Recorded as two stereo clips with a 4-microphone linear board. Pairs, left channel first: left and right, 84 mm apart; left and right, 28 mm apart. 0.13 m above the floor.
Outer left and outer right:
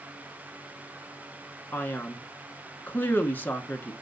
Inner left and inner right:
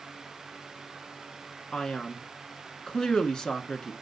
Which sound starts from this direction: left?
A man speaking, at 1.7 s.